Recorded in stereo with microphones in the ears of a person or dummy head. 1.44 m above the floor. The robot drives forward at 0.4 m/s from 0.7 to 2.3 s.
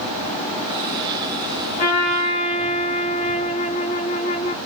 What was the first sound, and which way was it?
A trumpet, 30° left (ahead or behind).